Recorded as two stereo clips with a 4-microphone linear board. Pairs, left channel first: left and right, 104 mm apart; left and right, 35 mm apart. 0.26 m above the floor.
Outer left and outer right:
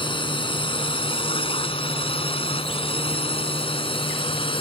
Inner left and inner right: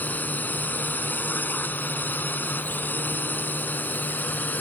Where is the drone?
55° left (ahead or behind).